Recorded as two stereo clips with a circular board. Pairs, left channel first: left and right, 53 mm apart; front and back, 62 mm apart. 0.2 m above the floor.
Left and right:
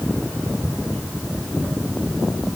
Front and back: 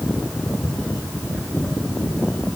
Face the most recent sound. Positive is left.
No sound to turn to.